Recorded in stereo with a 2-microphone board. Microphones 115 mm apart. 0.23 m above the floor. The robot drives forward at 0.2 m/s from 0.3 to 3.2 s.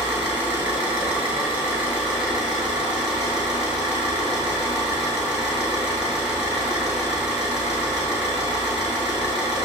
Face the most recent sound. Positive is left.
turn(degrees=-10)  # may be behind; listen again after turning